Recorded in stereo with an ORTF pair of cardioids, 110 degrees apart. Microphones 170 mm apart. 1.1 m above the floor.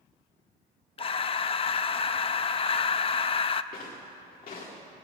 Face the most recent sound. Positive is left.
turn(degrees=55)